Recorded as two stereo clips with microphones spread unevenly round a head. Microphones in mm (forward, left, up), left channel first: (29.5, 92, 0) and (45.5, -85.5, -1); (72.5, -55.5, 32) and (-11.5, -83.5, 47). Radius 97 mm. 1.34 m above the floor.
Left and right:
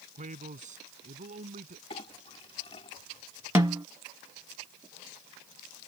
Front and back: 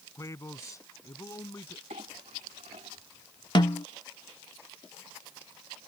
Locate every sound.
0.1 s a man speaking: 35° right
1.9 s a clink: 160° left
3.5 s a snare drum: 10° right